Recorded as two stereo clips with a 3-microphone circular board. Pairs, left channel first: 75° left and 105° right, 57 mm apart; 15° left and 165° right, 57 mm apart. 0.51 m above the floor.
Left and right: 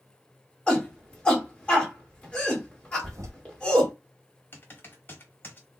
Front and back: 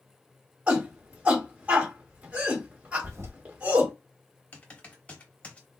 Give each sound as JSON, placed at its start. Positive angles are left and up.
{"t": 0.7, "sound": "a shout", "azimuth_deg": 140, "distance_m": 1.8}
{"t": 3.0, "sound": "a toilet flushing", "azimuth_deg": -130, "distance_m": 0.7}
{"t": 4.5, "sound": "typing on a keyboard", "azimuth_deg": 65, "distance_m": 1.0}